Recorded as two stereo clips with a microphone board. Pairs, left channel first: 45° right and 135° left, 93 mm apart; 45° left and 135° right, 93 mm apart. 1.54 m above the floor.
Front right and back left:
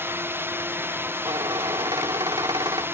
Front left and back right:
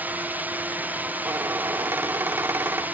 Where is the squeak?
165° left.